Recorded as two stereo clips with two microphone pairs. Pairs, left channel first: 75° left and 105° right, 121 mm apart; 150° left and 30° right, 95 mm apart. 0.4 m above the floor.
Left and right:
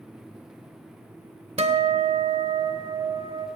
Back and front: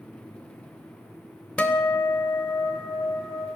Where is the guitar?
135° right, 0.5 m.